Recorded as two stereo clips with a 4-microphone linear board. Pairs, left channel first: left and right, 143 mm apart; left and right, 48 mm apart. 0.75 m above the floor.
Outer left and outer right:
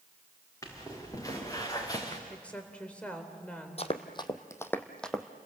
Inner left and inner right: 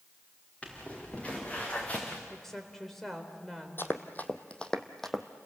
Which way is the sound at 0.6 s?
25° left (ahead or behind).